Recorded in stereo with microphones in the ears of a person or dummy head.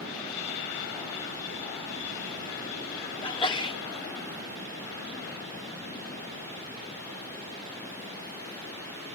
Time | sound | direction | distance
3.2 | a sneeze | 25° left (ahead or behind) | ?